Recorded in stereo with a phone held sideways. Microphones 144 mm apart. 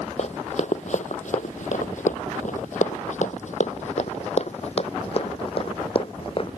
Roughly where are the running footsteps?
Left.